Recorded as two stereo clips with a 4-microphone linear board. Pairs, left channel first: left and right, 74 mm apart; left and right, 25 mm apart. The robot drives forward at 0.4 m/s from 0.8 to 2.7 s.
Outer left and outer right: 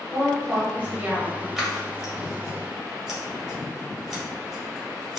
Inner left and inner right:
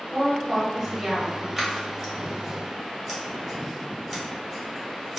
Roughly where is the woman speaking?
Centre.